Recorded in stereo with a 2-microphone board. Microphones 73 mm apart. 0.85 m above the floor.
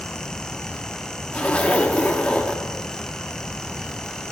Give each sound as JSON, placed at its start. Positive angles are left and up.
{"t": 1.3, "sound": "a zipper", "side_deg": 15, "distance_m": 1.3}